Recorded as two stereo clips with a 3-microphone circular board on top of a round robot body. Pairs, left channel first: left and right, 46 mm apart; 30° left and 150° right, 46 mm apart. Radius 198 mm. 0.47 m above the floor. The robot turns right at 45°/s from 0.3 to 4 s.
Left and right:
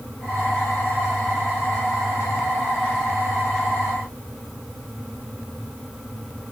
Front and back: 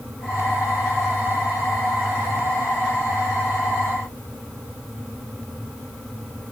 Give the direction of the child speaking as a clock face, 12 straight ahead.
No child speaking in this recording.